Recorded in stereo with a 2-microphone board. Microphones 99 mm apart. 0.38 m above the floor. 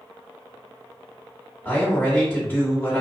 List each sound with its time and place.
1.6 s a man speaking: 20° left (ahead or behind), 1.4 m